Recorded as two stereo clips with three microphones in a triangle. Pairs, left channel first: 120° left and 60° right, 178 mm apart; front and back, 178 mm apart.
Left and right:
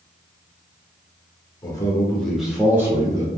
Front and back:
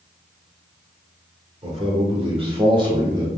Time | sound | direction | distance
1.6 | a man speaking | 170° left | 0.9 m